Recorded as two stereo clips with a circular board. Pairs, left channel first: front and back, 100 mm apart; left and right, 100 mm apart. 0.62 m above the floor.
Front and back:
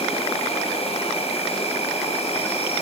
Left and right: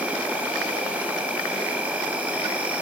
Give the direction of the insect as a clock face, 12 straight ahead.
12 o'clock.